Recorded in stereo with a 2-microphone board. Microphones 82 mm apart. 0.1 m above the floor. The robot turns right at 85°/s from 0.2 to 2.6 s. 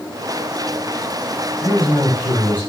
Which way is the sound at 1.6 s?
115° left.